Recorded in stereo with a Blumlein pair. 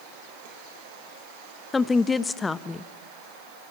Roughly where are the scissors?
No scissors in this recording.